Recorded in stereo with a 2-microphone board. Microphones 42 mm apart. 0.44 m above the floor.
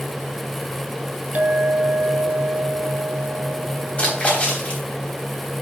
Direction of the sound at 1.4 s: 35° right (ahead or behind).